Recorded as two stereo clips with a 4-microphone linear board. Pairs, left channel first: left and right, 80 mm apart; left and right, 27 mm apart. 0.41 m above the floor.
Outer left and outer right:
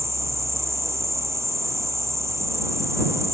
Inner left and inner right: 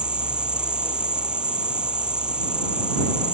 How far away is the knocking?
I don't hear knocking.